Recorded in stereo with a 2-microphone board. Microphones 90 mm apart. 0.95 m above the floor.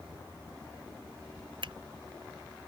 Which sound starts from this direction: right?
A finger snap, at 1.6 s.